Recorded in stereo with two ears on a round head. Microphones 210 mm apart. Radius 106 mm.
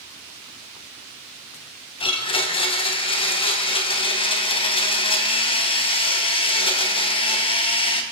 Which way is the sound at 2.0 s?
25° left (ahead or behind).